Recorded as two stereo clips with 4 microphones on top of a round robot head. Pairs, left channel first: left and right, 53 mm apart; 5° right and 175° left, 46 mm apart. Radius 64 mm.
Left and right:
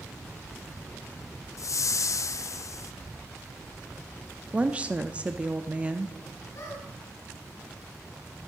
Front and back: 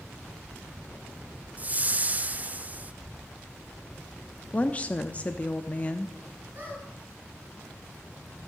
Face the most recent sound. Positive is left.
turn(degrees=130)